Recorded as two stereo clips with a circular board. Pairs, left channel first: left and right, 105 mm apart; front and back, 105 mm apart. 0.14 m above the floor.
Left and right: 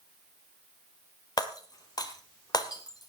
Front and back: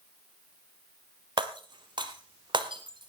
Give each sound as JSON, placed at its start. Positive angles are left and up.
{"t": 1.4, "sound": "breaking glass", "azimuth_deg": 140, "distance_m": 1.8}